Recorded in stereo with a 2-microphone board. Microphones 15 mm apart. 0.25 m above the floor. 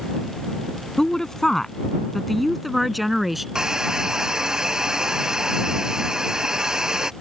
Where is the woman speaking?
40° left (ahead or behind); by 3.5 s 15° right (ahead or behind).